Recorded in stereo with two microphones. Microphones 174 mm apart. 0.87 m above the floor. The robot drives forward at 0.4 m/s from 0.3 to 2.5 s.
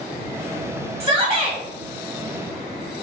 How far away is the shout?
About 1.0 m.